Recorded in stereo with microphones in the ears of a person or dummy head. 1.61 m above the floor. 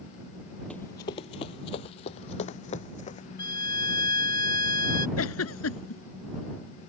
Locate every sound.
0.7 s running footsteps: 5° left (ahead or behind); by 3.3 s 40° left (ahead or behind)
3.4 s a violin: 25° left (ahead or behind)
5.2 s a giggle: 80° left